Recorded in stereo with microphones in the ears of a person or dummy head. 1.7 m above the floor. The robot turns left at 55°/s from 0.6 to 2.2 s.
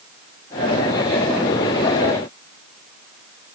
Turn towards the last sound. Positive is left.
No sound to turn to.